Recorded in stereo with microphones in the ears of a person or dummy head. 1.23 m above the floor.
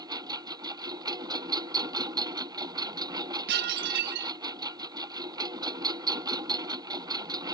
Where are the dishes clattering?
60° right (ahead or behind).